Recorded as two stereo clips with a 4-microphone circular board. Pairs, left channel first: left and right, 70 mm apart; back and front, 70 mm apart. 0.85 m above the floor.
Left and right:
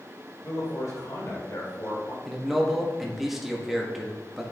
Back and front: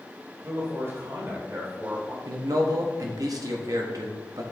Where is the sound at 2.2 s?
5° right, 1.0 m.